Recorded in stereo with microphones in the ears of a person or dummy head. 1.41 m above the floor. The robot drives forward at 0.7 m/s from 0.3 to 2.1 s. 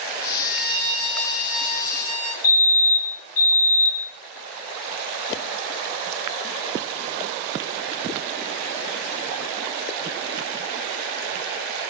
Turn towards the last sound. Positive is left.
turn(degrees=35)  # may be behind; listen again after turning